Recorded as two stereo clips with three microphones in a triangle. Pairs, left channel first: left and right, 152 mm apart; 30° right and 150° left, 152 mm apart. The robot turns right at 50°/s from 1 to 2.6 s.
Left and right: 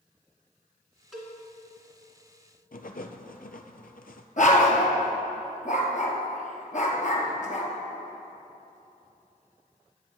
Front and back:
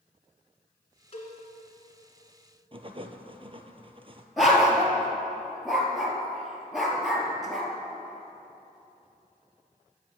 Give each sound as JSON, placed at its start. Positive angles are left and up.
{"t": 1.1, "sound": "a cowbell", "azimuth_deg": -5, "distance_m": 2.0}
{"t": 2.7, "sound": "writing", "azimuth_deg": 100, "distance_m": 0.6}
{"t": 4.4, "sound": "a dog barking", "azimuth_deg": 60, "distance_m": 1.6}